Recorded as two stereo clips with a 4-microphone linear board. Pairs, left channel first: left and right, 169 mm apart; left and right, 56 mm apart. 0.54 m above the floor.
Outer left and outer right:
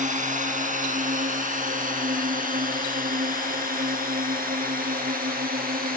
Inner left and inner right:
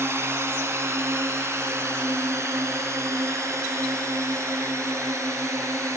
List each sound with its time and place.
0.0 s a drone: 50° right (ahead or behind); by 6.0 s 65° right (ahead or behind)